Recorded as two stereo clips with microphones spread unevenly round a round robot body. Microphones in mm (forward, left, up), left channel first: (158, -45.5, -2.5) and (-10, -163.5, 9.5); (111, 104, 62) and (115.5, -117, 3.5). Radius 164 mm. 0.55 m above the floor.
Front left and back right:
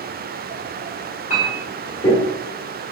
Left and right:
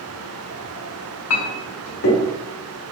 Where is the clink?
90° left, 0.8 m.